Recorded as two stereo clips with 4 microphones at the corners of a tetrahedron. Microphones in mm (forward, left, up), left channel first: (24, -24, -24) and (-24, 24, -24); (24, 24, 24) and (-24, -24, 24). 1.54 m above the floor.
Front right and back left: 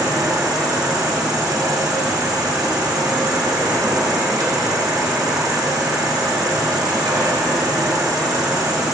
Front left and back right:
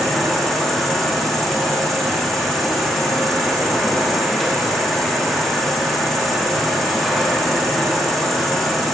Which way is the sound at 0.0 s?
130° left.